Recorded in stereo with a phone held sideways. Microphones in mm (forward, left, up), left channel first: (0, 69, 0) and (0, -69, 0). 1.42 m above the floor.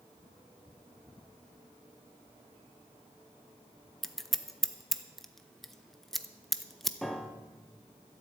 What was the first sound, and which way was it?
Scissors, centre (ahead or behind).